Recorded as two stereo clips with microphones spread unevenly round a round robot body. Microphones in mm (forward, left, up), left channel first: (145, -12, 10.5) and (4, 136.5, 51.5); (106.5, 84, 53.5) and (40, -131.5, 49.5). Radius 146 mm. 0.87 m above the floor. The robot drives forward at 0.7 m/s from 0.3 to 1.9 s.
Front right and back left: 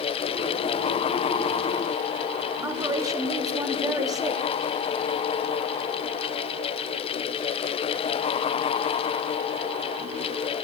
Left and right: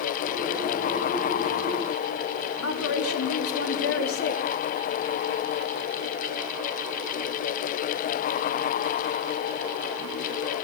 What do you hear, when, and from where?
2.6 s a woman speaking: 60° left, 3 m